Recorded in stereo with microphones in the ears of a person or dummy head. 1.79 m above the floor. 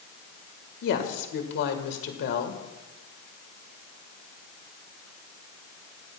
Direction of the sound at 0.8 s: 60° left (ahead or behind).